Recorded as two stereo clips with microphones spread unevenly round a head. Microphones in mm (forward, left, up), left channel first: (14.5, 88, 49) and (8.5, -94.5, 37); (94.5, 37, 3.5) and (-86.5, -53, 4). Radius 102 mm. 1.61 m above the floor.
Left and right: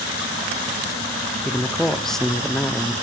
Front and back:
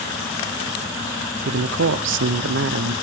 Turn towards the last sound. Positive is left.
turn(degrees=175)